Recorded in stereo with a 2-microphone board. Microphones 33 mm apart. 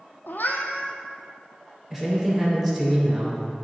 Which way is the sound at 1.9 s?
15° right (ahead or behind).